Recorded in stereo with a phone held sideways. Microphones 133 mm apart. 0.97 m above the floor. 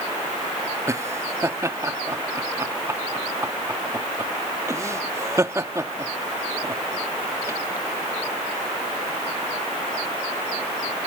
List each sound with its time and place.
0.9 s laughter: 20° right (ahead or behind)